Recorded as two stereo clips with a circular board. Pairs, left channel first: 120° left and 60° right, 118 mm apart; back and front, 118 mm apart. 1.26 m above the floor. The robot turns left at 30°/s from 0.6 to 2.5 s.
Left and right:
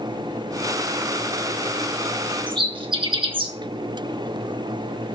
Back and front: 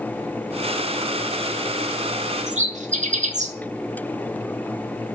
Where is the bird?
15° right, 2 m.